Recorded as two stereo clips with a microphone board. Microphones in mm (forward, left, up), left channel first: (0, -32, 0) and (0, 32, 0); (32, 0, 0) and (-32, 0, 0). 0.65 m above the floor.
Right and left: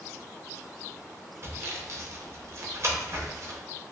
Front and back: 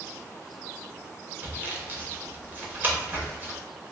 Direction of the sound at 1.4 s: 125° left.